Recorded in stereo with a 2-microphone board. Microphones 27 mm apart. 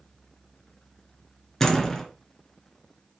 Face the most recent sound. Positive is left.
turn(degrees=10)  # may be behind; listen again after turning